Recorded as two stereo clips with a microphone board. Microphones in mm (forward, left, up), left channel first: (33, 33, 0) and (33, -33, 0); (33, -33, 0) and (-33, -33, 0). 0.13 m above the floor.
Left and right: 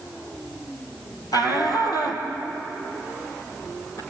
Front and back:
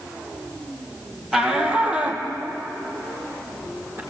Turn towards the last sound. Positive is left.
turn(degrees=130)